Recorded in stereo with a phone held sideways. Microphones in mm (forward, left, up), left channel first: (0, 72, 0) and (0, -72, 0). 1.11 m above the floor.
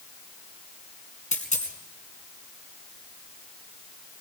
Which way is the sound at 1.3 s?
60° left (ahead or behind).